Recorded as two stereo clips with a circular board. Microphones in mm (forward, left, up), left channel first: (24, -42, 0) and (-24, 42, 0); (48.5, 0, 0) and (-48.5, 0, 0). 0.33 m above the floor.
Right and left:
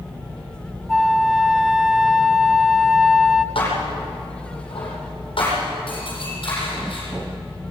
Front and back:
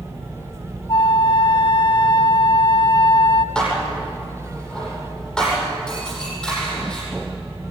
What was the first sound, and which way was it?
A flute, 35° left.